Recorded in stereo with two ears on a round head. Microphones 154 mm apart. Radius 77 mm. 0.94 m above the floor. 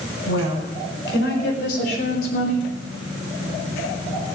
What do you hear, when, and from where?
0.3 s a woman speaking: 75° left (ahead or behind), 5.5 m; by 2.7 s 50° left (ahead or behind), 3 m